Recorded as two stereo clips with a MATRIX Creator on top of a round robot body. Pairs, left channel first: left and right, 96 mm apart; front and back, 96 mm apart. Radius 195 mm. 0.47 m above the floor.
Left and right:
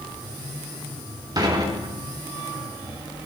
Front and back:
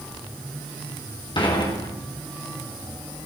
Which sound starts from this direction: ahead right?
Dishes clattering, at 1.4 s.